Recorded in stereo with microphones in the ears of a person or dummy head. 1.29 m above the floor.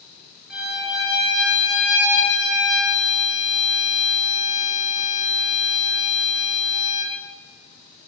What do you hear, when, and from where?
0.5 s a violin: centre (ahead or behind), 0.8 m